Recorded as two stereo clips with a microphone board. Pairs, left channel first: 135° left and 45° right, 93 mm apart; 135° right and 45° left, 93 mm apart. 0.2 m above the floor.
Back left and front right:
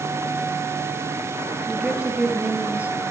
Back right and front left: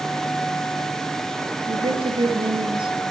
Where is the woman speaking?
35° left, 4.5 m; by 3.0 s 25° left, 4.5 m.